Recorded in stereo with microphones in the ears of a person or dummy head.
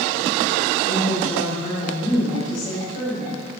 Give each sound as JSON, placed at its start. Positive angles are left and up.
{"t": 0.8, "sound": "a woman speaking", "side_deg": 45, "distance_m": 5.0}